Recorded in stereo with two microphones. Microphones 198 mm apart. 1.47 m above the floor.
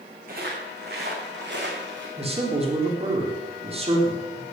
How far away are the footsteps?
About 6 m.